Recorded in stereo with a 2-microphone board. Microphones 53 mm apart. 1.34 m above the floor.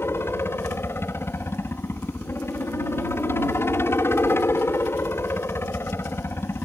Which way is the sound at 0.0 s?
50° left (ahead or behind).